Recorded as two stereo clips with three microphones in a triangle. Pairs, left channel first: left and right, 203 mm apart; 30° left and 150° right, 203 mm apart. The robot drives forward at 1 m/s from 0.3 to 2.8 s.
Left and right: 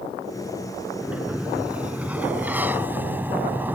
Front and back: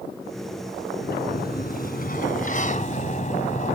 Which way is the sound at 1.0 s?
5° right.